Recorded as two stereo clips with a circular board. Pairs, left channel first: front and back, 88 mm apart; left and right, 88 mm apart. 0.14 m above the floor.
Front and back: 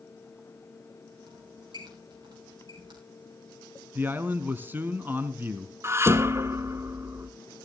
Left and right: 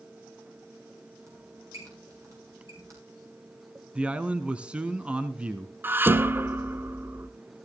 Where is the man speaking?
150° right, 1.2 m.